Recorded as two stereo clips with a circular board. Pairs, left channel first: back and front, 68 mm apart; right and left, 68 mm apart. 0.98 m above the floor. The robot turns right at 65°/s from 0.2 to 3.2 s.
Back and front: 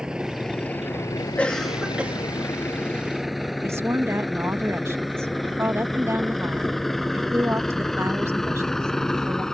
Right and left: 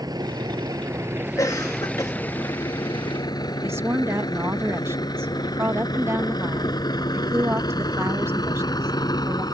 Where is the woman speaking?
45° left.